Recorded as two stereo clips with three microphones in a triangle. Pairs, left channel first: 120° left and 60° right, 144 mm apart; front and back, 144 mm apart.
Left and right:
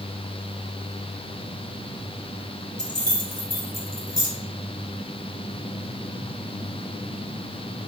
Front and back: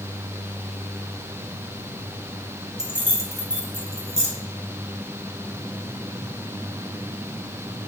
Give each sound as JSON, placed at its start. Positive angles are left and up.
{"t": 2.8, "sound": "keys jangling", "azimuth_deg": 95, "distance_m": 0.9}